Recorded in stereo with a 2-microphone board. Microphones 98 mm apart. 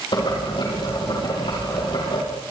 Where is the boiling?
55° left (ahead or behind), 8 m.